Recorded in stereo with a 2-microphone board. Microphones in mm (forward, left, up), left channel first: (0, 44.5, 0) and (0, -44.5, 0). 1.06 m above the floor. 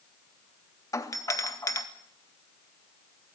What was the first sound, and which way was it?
A doorbell, 40° left (ahead or behind).